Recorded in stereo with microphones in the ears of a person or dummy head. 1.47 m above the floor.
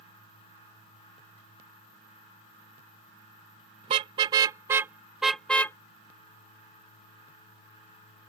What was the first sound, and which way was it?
A car horn, 25° right (ahead or behind).